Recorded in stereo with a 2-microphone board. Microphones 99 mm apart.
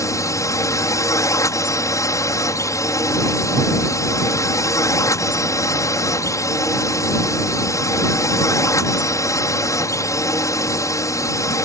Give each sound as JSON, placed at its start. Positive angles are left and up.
{"t": 0.0, "sound": "a drone", "side_deg": 30}